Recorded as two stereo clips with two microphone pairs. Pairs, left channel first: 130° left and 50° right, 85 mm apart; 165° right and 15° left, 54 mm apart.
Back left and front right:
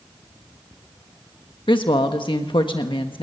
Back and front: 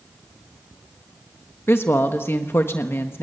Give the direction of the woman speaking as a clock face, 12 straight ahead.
7 o'clock.